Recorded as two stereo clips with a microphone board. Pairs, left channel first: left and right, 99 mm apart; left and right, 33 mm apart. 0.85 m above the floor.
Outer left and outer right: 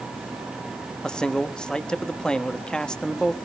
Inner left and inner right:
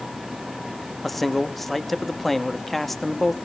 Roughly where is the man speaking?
Centre.